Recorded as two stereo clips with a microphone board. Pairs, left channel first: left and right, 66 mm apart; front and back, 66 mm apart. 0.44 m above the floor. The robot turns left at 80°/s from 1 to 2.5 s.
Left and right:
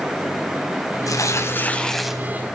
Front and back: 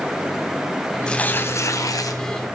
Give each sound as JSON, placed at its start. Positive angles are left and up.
{"t": 1.1, "sound": "tearing paper", "azimuth_deg": 75, "distance_m": 2.5}